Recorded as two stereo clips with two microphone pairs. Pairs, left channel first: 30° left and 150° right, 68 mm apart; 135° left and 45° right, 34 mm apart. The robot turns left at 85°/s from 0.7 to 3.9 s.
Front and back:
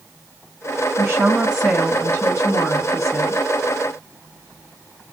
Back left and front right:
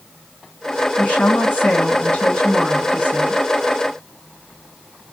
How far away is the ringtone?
No ringtone in this recording.